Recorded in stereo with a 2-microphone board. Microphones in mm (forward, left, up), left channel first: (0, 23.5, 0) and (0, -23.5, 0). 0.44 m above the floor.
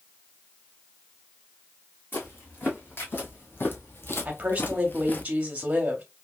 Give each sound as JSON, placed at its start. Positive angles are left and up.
{"t": 2.1, "sound": "footsteps", "side_deg": 45, "distance_m": 1.8}
{"t": 4.2, "sound": "a woman speaking", "side_deg": -30, "distance_m": 1.1}